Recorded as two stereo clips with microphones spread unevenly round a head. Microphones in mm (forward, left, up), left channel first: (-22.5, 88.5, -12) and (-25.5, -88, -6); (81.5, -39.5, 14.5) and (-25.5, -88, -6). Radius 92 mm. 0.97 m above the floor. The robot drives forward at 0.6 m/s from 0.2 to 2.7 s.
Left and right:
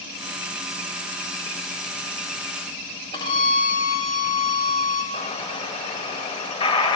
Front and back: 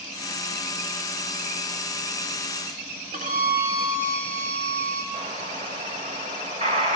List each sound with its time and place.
3.1 s a violin: 155° left, 1.7 m
5.1 s an explosion: 145° left, 1.2 m